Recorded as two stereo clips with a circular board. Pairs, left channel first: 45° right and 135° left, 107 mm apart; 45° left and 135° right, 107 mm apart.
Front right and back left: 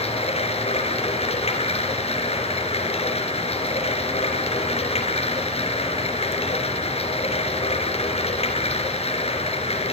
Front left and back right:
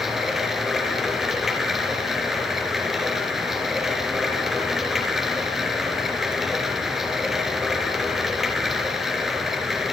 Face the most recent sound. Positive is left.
turn(degrees=-50)